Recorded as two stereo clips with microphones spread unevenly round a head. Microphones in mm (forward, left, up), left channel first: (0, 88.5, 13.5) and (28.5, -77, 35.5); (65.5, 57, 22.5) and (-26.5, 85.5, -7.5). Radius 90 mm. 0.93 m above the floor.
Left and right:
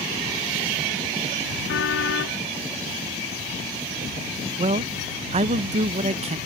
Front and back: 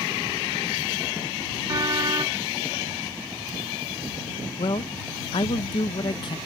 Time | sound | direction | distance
1.7 | a car horn | 115° left | ?
4.6 | a man speaking | 50° right | ?